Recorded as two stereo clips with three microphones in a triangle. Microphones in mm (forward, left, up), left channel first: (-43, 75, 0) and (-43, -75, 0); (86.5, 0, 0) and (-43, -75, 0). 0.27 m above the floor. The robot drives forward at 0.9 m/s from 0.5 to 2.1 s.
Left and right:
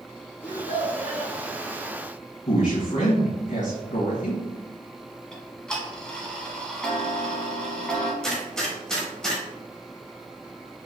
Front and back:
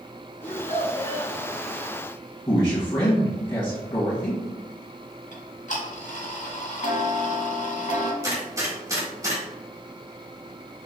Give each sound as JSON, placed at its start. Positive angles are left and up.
{"t": 0.4, "sound": "a child speaking", "azimuth_deg": 55, "distance_m": 2.0}
{"t": 2.5, "sound": "a man speaking", "azimuth_deg": 80, "distance_m": 1.8}
{"t": 5.3, "sound": "ticking", "azimuth_deg": 5, "distance_m": 1.0}
{"t": 8.2, "sound": "a gunshot", "azimuth_deg": 170, "distance_m": 1.5}